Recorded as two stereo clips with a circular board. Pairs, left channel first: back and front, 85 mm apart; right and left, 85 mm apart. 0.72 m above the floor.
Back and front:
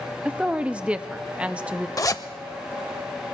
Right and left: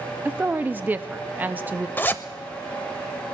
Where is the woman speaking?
55° left, 0.6 m.